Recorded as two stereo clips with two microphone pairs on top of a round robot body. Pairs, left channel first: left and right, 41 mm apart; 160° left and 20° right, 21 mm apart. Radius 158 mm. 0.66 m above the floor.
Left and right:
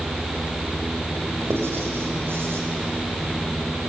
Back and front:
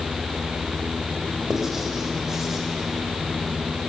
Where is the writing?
90° right, 4 m.